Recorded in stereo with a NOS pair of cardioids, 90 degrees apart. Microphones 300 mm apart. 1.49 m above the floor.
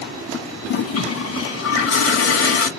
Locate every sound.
0.7 s a toilet flushing: 50° left, 1.6 m